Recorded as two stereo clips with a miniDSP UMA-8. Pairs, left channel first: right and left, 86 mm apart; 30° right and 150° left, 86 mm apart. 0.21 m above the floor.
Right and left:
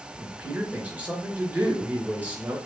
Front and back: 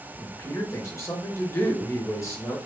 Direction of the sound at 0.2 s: 20° left.